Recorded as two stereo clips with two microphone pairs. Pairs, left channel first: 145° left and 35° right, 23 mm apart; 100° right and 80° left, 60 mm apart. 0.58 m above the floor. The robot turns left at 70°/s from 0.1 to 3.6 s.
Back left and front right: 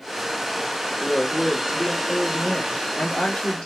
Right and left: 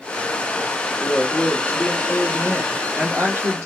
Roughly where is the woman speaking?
Right.